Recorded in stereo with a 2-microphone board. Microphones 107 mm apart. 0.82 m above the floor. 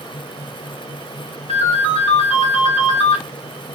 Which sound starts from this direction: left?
A ringtone, at 1.5 s.